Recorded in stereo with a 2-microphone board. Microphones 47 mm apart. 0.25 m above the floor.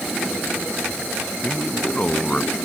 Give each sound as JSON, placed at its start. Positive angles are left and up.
{"t": 1.4, "sound": "a man speaking", "side_deg": 25}